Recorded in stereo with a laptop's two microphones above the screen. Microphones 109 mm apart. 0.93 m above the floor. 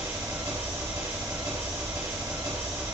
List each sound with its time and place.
0.0 s an engine running: 30° right (ahead or behind), 1.2 m